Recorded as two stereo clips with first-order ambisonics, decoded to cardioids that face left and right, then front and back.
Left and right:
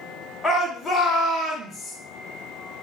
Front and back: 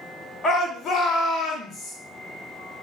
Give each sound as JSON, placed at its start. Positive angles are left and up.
{"t": 0.4, "sound": "a shout", "azimuth_deg": 5, "distance_m": 0.7}